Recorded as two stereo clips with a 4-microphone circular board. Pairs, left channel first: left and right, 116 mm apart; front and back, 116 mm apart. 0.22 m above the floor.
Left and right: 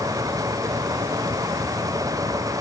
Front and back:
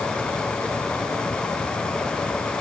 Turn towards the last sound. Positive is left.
No sound to turn to.